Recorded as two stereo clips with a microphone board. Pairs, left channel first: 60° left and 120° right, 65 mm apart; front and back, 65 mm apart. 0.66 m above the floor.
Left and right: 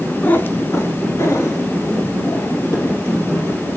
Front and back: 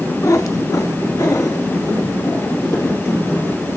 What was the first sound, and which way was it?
A cat meowing, 5° left.